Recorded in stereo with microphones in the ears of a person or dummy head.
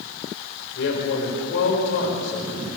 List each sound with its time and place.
0.8 s a man speaking: 85° left, 5.5 m